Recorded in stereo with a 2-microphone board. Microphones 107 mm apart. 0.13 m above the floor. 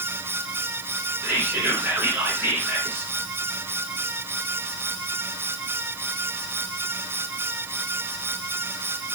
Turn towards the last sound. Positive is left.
turn(degrees=-20)  # may be behind; listen again after turning